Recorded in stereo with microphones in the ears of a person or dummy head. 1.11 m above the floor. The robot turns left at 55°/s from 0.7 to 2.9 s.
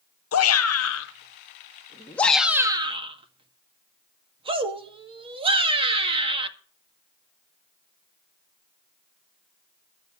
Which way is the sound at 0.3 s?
80° left.